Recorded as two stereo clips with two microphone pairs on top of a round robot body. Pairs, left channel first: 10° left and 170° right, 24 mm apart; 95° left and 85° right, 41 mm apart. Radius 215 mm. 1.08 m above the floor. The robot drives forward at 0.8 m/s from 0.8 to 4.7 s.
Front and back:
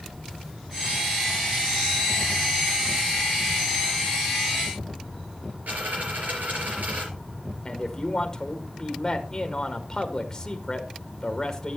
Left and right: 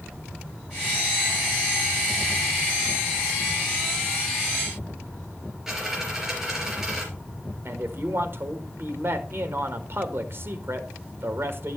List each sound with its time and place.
5.7 s a dropped coin: 170° right, 4 m
7.7 s a man speaking: 60° right, 1.8 m